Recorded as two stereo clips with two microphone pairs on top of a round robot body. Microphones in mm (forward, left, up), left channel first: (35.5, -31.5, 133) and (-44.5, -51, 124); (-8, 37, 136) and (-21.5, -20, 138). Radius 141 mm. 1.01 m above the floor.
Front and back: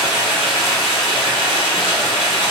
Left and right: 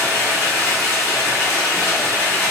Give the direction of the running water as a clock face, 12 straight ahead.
11 o'clock.